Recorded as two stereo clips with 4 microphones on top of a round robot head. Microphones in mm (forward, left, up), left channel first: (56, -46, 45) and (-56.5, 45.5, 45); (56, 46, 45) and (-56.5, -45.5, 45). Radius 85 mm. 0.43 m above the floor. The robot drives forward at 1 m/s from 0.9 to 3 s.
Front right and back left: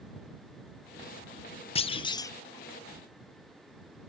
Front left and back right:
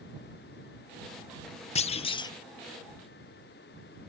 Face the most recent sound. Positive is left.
turn(degrees=175)